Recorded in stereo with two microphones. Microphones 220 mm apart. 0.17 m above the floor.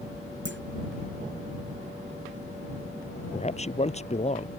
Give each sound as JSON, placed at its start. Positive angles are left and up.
{"t": 0.5, "sound": "a clunk", "side_deg": -60}
{"t": 3.3, "sound": "a man speaking", "side_deg": 30}